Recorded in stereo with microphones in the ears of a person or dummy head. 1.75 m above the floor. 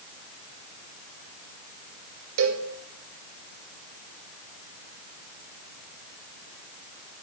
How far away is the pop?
No pop in this recording.